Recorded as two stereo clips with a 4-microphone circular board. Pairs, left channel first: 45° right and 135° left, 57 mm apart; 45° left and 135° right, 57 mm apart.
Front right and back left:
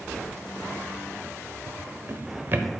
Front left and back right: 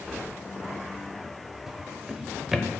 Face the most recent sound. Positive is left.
turn(degrees=145)